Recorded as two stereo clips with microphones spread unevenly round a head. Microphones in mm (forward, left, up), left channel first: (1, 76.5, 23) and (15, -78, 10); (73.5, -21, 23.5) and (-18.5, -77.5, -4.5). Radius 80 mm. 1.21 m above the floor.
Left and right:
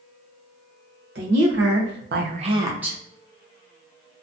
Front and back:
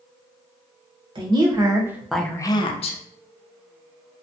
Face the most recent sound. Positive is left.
turn(degrees=5)